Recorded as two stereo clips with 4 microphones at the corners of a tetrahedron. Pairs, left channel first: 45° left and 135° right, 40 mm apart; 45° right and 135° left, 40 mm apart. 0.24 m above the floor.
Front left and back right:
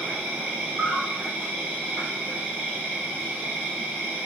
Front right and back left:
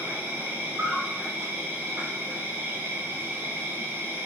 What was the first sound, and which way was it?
An insect, 155° left.